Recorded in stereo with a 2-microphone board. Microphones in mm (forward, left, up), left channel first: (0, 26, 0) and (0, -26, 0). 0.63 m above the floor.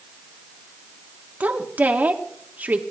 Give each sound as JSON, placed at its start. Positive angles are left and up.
{"t": 1.4, "sound": "a woman speaking", "side_deg": -35, "distance_m": 1.5}